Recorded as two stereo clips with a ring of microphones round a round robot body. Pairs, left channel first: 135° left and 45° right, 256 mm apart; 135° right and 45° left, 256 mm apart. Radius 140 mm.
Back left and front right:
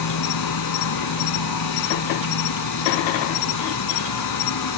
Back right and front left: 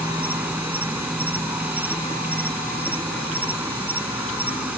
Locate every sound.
0.0 s an insect: 130° left